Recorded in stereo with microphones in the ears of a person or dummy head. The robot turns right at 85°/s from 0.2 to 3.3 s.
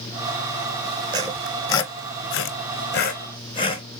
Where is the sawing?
25° right (ahead or behind), 0.7 m; by 3.8 s 25° left (ahead or behind), 0.7 m.